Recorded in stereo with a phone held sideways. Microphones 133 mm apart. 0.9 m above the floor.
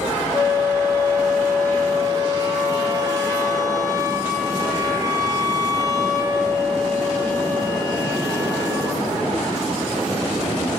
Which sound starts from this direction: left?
A flute, at 0.3 s.